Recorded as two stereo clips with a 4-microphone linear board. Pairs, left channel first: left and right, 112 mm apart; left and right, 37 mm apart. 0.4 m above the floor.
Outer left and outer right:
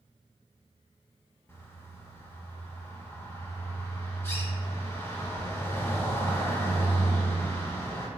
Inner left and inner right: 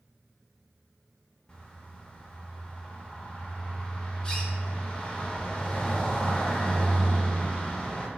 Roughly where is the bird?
Left.